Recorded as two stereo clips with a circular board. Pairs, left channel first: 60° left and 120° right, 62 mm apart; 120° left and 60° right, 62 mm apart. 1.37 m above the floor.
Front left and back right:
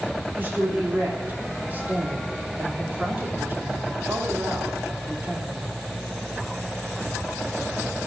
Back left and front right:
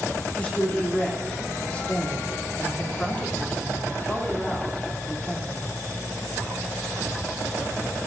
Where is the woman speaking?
175° right, 3 m.